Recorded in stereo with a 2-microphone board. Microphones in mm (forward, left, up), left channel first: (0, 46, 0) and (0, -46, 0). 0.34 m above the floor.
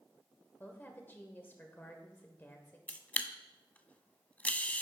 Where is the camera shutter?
15° left (ahead or behind), 0.6 m.